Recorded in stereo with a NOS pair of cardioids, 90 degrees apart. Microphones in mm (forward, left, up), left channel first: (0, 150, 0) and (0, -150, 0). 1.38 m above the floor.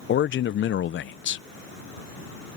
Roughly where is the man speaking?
Ahead left.